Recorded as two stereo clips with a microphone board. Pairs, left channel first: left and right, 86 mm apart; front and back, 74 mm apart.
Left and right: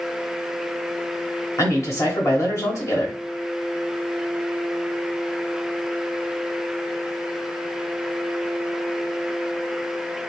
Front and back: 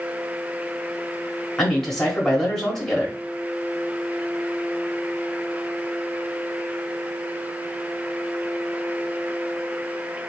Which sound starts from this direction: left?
A man speaking, at 1.6 s.